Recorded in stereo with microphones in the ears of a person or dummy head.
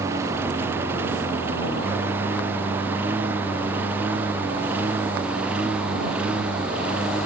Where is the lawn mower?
15° right (ahead or behind); by 7.3 s 10° right (ahead or behind).